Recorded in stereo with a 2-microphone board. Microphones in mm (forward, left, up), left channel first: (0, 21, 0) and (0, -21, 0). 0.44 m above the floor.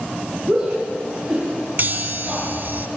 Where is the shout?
30° right (ahead or behind), 6 m.